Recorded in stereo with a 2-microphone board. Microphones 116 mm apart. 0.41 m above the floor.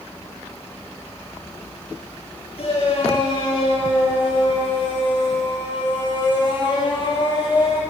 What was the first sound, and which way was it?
A shout, 55° left (ahead or behind).